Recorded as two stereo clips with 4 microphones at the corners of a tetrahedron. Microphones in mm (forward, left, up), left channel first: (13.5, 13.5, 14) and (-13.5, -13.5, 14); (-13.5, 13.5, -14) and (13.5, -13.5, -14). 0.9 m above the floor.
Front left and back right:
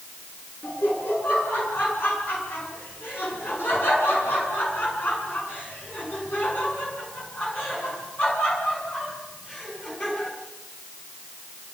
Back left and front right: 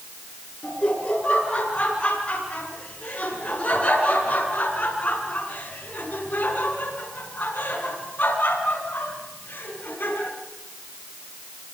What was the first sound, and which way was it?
Laughter, 75° left.